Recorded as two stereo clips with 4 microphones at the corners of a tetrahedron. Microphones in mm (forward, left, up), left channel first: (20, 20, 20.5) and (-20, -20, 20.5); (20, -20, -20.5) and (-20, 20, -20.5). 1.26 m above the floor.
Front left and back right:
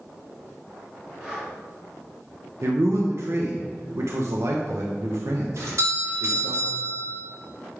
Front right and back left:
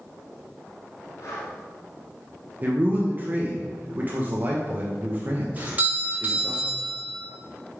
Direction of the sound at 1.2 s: 60° right.